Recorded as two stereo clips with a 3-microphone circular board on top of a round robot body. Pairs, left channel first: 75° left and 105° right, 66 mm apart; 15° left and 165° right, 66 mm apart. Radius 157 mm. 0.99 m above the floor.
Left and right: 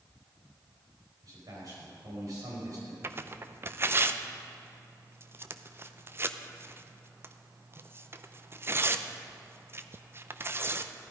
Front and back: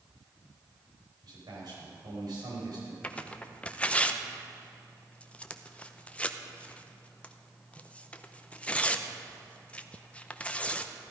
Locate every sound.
1.2 s a man speaking: 140° right, 5 m
3.0 s tearing paper: 55° right, 0.9 m